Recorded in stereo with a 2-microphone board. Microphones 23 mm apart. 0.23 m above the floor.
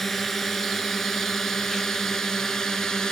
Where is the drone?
10° left (ahead or behind); by 3.1 s 30° left (ahead or behind).